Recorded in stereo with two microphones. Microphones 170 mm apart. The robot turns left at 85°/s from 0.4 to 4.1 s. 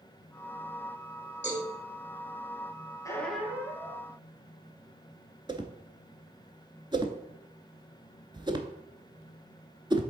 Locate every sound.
1.4 s a cowbell: 40° left (ahead or behind), 3.5 m; by 1.7 s 60° left (ahead or behind), 3.5 m
3.0 s a squeak: 25° left, 1.2 m; by 4.1 s 60° right, 1.2 m
5.5 s a whoosh: 25° right (ahead or behind), 0.7 m